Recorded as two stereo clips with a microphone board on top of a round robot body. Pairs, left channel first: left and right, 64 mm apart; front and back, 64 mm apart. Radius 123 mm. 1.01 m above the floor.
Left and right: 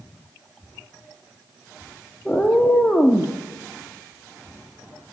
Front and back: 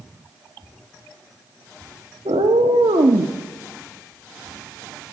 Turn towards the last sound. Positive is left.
turn(degrees=175)